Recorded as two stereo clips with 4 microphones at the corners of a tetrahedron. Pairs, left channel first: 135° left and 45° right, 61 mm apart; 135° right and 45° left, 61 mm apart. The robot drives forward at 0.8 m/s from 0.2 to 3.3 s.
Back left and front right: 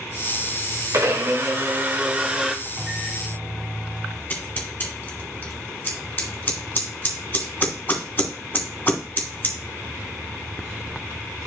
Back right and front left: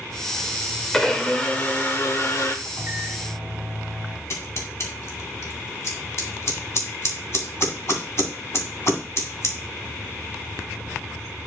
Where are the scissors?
175° right, 2 m.